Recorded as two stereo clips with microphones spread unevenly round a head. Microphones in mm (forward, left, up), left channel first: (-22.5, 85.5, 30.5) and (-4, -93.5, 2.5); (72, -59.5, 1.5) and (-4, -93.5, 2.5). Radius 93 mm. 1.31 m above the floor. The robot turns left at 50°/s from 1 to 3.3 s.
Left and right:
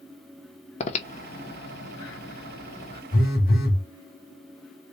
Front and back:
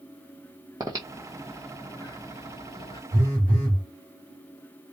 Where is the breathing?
140° left, 0.9 m; by 3.0 s 40° left, 0.9 m.